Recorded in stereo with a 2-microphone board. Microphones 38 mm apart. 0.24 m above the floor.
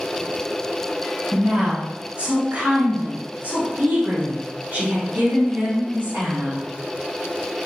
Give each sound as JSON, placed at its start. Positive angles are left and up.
{"t": 1.3, "sound": "a woman speaking", "side_deg": -40, "distance_m": 1.4}